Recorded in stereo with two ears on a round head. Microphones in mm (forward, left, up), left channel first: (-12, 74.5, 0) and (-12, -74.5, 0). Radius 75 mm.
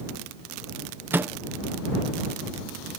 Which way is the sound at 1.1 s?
10° right (ahead or behind).